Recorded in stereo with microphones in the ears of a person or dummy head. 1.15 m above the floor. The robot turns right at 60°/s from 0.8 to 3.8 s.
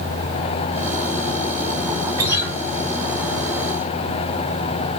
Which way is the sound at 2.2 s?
20° right (ahead or behind).